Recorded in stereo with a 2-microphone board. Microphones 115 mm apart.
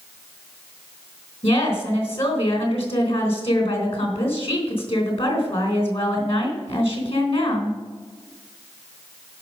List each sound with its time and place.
1.4 s a woman speaking: 60° left (ahead or behind), 3.5 m